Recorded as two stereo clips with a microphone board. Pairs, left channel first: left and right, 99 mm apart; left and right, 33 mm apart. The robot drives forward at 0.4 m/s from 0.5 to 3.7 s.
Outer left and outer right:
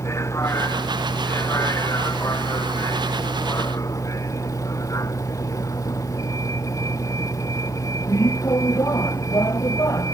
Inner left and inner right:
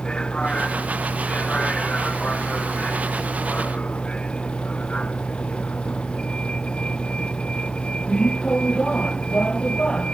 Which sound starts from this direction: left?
A vehicle, at 0.0 s.